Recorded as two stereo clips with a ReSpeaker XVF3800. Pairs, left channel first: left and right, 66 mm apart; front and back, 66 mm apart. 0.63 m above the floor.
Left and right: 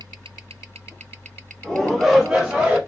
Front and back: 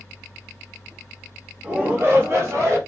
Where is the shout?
155° left, 1.0 m; by 2.8 s 160° right, 1.6 m.